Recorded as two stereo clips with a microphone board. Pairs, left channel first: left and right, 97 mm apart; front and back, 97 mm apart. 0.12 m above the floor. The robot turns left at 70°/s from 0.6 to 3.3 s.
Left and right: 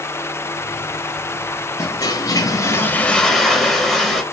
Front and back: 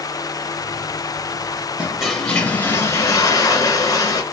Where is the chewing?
No chewing in this recording.